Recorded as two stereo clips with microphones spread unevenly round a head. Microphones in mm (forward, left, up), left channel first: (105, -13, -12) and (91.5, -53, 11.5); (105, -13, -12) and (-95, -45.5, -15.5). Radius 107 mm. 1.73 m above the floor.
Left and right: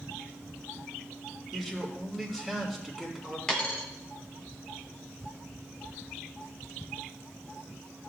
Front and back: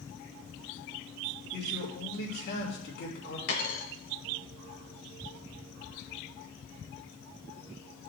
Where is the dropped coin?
15° right, 3 m.